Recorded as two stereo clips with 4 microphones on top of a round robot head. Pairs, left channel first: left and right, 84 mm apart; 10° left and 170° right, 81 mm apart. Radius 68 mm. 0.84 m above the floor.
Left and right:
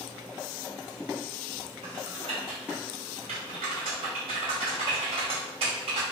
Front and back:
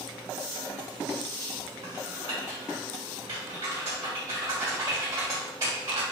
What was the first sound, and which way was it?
Typing on a keyboard, 105° right.